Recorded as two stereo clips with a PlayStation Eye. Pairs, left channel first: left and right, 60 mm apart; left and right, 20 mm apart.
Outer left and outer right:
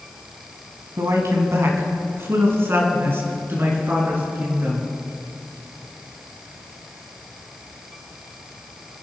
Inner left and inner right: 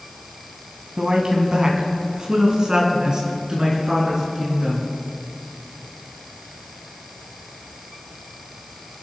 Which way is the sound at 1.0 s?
55° right (ahead or behind).